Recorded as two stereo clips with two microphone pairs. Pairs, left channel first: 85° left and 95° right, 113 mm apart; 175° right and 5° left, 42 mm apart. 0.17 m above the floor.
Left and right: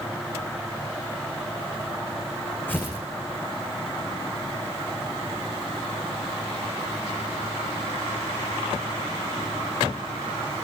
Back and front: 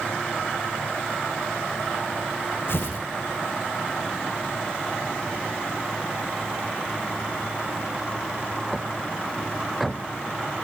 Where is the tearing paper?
160° left, 7 m.